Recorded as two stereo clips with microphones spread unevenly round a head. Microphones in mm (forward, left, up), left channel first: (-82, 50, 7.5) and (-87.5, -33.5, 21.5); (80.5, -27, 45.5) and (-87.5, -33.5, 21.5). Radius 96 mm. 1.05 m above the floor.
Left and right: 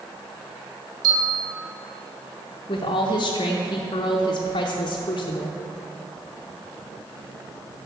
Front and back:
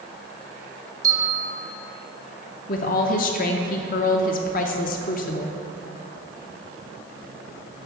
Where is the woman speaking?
45° left, 0.5 m.